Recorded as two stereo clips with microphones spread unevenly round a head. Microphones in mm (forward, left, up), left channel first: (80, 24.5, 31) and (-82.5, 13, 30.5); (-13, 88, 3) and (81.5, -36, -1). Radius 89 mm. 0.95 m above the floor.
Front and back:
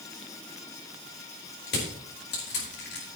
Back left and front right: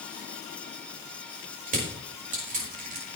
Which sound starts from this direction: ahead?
Crushing, at 1.7 s.